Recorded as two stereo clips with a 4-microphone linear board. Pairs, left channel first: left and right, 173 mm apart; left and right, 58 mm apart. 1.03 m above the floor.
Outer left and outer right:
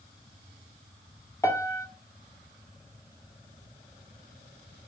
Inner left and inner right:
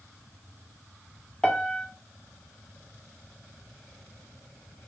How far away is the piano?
About 1.4 m.